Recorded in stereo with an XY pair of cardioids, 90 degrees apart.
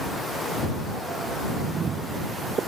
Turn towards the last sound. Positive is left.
turn(degrees=-60)